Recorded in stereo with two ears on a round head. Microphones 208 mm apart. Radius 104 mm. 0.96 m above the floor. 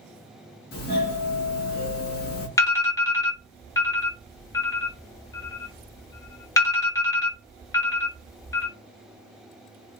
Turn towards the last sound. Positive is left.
turn(degrees=15)  # may be behind; listen again after turning